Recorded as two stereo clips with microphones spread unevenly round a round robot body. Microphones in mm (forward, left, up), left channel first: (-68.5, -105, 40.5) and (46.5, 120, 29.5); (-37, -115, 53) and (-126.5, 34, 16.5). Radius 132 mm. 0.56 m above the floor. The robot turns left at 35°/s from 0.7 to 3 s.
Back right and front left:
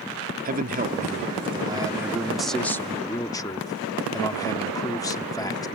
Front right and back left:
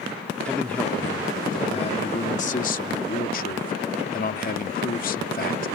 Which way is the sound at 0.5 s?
35° left.